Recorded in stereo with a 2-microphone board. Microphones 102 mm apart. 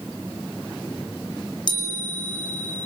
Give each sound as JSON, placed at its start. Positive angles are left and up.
{"t": 1.7, "sound": "a chime", "side_deg": 45, "distance_m": 4.0}